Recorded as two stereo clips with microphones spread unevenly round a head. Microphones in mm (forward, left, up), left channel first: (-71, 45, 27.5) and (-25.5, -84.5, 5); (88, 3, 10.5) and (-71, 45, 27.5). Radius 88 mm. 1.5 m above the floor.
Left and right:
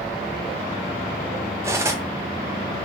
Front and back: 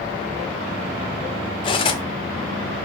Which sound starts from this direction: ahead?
Cutlery clinking, at 1.6 s.